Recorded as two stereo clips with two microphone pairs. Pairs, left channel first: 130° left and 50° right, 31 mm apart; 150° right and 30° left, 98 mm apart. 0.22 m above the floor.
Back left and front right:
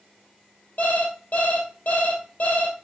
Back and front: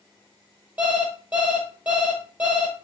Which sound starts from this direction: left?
An alarm clock, at 0.8 s.